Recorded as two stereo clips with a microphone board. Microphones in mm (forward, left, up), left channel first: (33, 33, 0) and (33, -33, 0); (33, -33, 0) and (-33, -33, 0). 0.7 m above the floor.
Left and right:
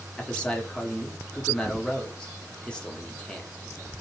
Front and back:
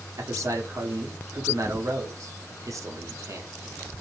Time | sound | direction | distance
0.2 | a man speaking | 165° left | 0.8 m